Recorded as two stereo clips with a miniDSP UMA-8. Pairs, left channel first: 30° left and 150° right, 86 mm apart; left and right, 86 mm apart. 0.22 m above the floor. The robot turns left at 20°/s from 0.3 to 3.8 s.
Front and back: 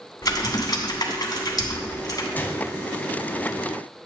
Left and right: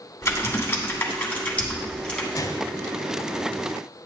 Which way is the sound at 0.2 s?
50° left.